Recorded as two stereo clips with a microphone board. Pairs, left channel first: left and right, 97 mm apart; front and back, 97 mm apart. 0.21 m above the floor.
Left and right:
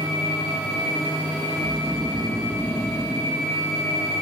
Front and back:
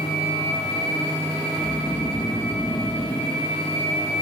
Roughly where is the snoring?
Ahead right.